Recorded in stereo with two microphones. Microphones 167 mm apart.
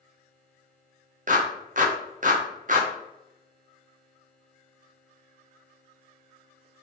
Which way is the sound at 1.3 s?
55° right (ahead or behind).